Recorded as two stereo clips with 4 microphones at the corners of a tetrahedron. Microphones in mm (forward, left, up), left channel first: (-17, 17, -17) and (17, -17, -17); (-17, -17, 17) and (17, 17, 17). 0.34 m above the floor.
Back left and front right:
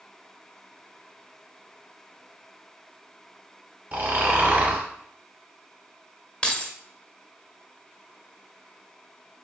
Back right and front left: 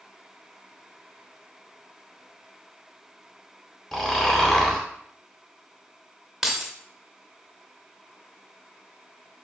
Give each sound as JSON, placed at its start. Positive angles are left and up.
{"t": 3.9, "sound": "snoring", "azimuth_deg": -65, "distance_m": 0.9}
{"t": 6.4, "sound": "keys jangling", "azimuth_deg": 120, "distance_m": 0.6}